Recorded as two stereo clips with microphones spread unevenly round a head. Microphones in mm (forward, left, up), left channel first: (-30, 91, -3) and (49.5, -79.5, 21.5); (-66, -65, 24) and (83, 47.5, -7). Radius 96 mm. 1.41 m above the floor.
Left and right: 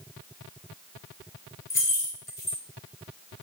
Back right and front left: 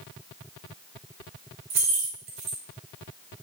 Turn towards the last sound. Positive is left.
turn(degrees=35)